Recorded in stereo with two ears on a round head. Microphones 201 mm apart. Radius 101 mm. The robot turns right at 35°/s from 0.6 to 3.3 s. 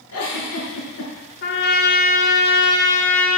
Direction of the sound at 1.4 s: 105° left.